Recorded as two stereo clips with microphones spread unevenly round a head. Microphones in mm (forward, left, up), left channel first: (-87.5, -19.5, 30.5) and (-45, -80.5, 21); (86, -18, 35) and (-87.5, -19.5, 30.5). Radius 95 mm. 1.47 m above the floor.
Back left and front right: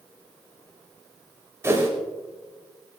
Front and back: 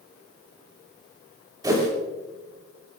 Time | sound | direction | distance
1.6 | a whoosh | 110° right | 6.5 m